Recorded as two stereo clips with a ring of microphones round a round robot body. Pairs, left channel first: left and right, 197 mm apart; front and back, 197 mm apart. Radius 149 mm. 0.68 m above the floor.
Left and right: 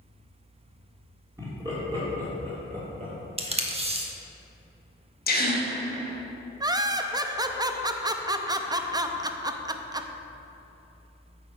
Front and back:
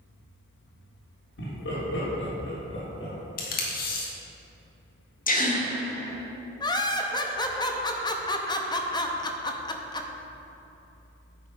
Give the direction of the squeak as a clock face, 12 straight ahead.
No squeak in this recording.